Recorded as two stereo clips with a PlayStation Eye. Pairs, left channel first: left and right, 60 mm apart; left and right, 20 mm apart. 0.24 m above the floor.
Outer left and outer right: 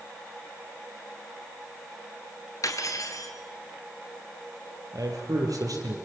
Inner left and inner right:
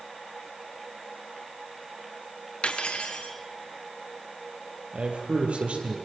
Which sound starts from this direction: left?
Cutlery clinking, at 2.6 s.